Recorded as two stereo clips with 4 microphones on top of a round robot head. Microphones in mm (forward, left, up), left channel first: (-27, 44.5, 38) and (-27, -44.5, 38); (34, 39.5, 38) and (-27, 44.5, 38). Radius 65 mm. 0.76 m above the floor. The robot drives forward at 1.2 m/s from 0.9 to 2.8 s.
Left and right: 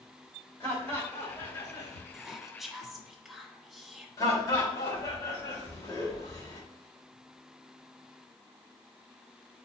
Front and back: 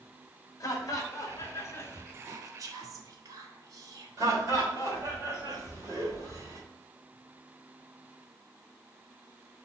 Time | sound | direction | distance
0.6 | laughter | 20° left | 2.5 m
2.1 | whispering | 170° right | 0.7 m
4.2 | laughter | 145° left | 3 m